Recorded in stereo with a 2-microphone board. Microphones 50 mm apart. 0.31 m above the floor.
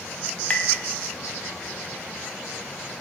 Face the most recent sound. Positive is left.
turn(degrees=35)  # may be behind; listen again after turning